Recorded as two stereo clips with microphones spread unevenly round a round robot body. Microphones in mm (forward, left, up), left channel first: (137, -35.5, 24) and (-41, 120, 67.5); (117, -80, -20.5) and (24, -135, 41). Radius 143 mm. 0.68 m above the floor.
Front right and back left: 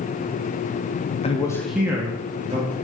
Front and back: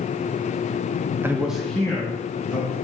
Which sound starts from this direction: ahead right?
A man speaking, at 1.2 s.